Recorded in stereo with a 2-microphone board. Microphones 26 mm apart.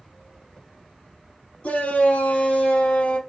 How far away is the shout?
About 4.5 m.